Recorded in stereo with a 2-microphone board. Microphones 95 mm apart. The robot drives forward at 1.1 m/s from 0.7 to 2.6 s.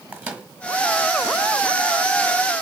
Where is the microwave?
15° right (ahead or behind), 1.3 m.